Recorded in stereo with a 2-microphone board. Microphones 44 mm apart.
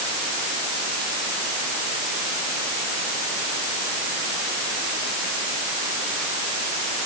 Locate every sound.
Only background noise.